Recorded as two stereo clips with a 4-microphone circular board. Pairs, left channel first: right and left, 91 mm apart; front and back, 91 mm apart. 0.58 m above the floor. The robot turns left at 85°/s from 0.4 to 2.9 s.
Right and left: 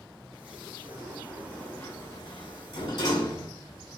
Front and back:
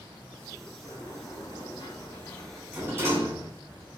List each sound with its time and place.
0.8 s a sliding door: 50° left, 2 m; by 3.5 s 125° right, 2 m